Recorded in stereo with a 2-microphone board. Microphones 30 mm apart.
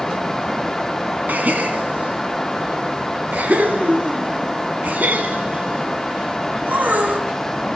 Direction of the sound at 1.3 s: 75° right (ahead or behind).